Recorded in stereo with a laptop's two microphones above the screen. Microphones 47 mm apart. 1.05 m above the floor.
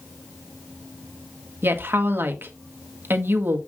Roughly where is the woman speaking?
Right.